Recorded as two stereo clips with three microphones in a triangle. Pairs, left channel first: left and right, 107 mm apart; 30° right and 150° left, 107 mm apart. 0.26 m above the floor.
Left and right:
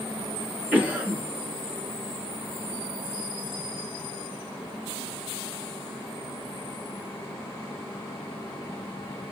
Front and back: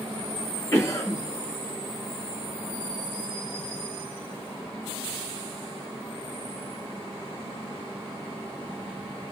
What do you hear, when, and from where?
0.7 s a cough: 40° right, 1.0 m